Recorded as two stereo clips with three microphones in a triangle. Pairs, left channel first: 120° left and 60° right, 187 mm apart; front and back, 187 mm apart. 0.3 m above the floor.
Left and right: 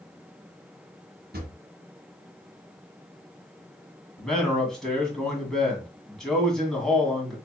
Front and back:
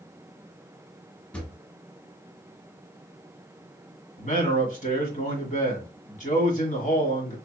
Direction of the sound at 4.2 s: 35° left.